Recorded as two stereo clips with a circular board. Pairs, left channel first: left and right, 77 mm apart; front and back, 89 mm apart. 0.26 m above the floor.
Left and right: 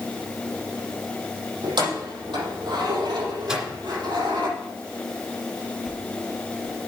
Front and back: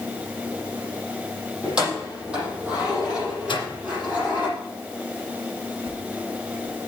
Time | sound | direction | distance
1.6 | keys jangling | 100° right | 6 m
3.5 | a microwave | 10° right | 2.0 m
5.8 | a whoosh | straight behind | 2.5 m